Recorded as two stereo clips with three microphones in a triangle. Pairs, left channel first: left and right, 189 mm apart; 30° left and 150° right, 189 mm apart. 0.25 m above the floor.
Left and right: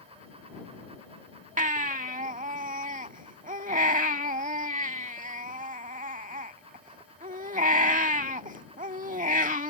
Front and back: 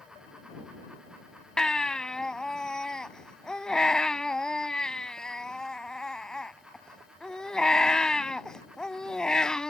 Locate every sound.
1.6 s a baby crying: 55° right